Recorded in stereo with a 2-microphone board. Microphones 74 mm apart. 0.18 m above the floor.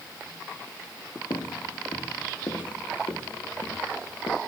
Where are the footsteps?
85° left, 2 m; by 4.4 s 70° left (ahead or behind), 3.5 m.